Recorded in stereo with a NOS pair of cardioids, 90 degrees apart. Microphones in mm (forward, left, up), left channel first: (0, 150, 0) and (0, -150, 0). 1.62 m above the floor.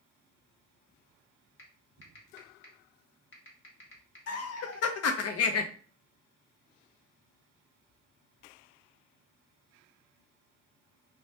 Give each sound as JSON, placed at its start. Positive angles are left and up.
{"t": 1.6, "sound": "typing on a keyboard", "azimuth_deg": 40, "distance_m": 1.0}
{"t": 4.3, "sound": "laughter", "azimuth_deg": 55, "distance_m": 0.5}